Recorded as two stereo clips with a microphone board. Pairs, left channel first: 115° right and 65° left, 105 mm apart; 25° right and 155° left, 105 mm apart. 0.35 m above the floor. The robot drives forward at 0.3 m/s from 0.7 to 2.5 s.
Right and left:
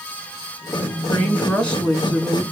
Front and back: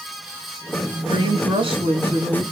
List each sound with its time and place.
1.1 s a woman speaking: 165° left, 1.6 m; by 2.4 s 170° left, 1.9 m